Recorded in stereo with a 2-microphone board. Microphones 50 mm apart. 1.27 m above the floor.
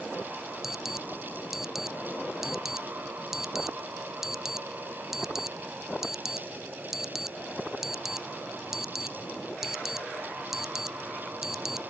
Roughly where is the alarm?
Centre.